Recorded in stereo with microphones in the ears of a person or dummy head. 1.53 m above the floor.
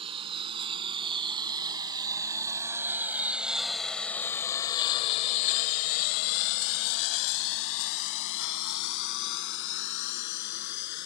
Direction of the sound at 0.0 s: 35° right (ahead or behind).